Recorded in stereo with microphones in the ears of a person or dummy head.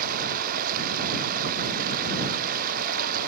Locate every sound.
0.0 s running water: 50° right (ahead or behind)